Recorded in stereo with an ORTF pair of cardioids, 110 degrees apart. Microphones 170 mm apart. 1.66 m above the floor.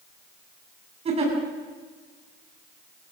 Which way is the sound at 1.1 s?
40° right.